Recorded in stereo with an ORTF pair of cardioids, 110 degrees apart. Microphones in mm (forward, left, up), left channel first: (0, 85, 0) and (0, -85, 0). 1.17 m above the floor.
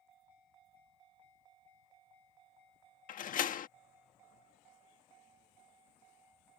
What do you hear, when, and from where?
3.1 s a door slam: 50° left